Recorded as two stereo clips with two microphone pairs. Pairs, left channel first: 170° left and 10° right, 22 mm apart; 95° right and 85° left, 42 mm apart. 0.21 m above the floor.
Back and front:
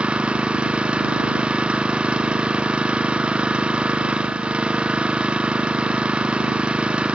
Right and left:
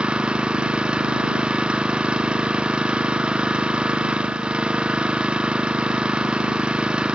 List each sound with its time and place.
0.0 s an engine running: 20° left